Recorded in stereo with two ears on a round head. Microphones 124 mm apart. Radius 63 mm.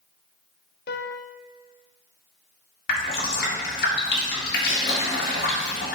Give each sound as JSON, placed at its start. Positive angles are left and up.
{"t": 0.9, "sound": "a piano", "side_deg": 80, "distance_m": 0.6}
{"t": 2.9, "sound": "dripping", "side_deg": 70, "distance_m": 1.9}